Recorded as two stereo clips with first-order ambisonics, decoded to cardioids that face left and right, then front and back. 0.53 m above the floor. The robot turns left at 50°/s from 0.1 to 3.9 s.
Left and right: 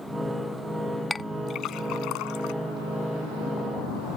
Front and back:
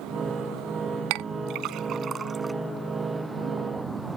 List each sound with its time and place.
1.1 s a clink: 165° left; by 2.5 s 95° left